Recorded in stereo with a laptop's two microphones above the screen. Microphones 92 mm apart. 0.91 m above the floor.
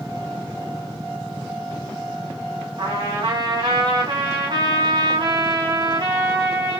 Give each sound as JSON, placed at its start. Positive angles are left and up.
{"t": 2.8, "sound": "a trumpet", "side_deg": -60, "distance_m": 2.0}